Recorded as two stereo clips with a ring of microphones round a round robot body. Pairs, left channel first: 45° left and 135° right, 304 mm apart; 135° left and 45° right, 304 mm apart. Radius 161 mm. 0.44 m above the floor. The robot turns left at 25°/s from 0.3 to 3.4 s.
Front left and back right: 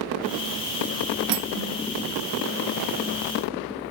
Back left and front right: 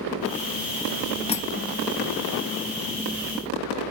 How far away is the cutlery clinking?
About 0.6 m.